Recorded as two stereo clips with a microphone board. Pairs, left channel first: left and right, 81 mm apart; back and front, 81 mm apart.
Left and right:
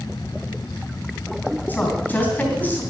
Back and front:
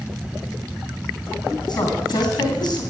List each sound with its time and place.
1.7 s a woman speaking: 155° left, 3 m